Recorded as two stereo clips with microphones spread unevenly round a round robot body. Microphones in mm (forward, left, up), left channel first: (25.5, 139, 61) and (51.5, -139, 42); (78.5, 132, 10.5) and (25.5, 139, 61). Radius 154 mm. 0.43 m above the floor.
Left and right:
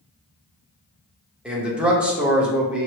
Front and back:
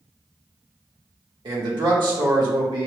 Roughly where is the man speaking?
Behind.